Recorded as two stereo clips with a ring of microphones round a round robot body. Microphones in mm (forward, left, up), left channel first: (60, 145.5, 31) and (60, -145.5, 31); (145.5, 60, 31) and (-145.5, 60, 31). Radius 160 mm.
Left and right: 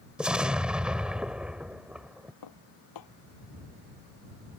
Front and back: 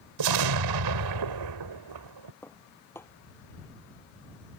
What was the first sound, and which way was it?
An explosion, 175° right.